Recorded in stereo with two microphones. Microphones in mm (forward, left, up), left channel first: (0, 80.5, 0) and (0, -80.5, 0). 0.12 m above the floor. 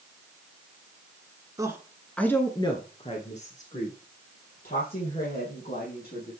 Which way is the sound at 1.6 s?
20° right (ahead or behind).